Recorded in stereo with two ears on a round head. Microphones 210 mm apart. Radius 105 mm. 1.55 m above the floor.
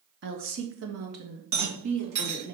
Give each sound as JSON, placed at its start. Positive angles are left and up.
{"t": 0.2, "sound": "a woman speaking", "side_deg": -50, "distance_m": 0.9}
{"t": 1.5, "sound": "a rattle", "side_deg": -90, "distance_m": 3.0}